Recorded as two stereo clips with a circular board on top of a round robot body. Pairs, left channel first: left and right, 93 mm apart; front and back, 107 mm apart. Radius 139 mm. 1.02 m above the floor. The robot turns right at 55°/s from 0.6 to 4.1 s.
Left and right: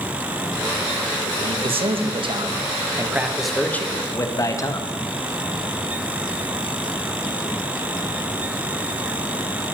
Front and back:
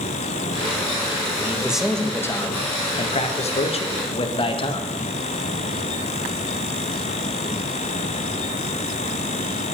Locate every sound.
1.4 s a man speaking: 115° right, 1.6 m; by 4.9 s 35° left, 1.6 m